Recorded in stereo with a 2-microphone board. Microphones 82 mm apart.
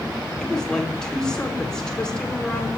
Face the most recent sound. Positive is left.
turn(degrees=10)  # may be behind; listen again after turning